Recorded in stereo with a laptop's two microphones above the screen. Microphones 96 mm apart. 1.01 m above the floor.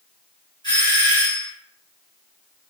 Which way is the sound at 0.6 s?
45° left (ahead or behind).